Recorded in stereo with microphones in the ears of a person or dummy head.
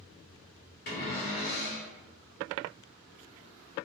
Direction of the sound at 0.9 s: 50° left (ahead or behind).